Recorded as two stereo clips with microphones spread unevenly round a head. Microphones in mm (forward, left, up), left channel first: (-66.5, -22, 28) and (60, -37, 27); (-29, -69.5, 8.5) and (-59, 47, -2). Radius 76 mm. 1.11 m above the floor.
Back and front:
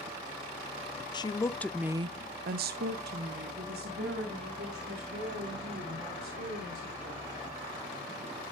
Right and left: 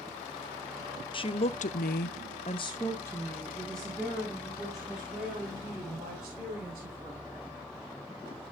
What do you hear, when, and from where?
1.1 s a woman speaking: 125° right, 1.0 m; by 7.3 s 20° left, 5 m